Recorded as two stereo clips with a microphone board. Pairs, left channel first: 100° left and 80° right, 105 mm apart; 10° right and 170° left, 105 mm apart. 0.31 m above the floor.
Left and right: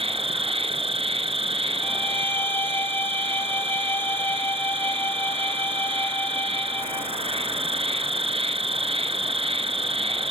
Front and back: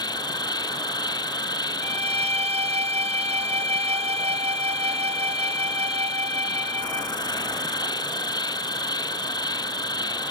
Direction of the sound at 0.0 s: 60° right.